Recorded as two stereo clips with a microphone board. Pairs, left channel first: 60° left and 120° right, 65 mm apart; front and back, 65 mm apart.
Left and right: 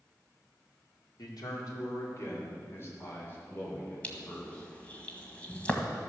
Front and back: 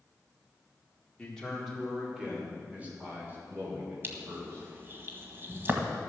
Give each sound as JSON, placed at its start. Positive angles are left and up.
{"t": 1.2, "sound": "a man speaking", "azimuth_deg": 75, "distance_m": 3.5}
{"t": 4.0, "sound": "crushing", "azimuth_deg": 130, "distance_m": 1.7}